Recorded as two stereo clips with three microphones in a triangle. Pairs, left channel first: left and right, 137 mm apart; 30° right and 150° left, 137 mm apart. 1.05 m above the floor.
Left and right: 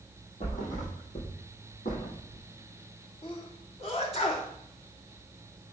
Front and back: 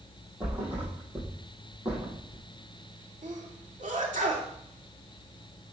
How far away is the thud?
About 4 m.